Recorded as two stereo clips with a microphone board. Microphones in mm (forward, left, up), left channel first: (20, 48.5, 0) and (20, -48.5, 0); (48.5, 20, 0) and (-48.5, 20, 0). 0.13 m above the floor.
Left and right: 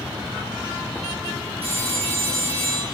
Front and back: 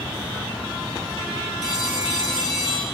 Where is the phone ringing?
90° right, 6 m.